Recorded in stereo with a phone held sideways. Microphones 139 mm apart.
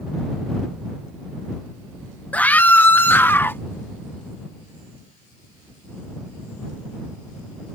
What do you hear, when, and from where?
2.3 s a scream: 10° left (ahead or behind); by 3.6 s 15° left (ahead or behind)